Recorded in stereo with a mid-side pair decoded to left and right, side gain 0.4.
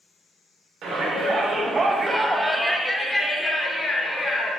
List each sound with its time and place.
0.8 s a shout: 65° right, 1.1 m; by 4.5 s 40° left, 1.5 m